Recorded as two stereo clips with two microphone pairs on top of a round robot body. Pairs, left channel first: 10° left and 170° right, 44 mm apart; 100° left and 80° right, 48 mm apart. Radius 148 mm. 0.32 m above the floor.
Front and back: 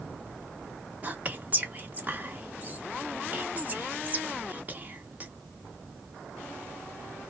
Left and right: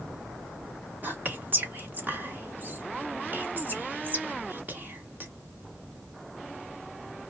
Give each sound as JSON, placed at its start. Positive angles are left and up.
{"t": 1.0, "sound": "whispering", "azimuth_deg": -125, "distance_m": 1.7}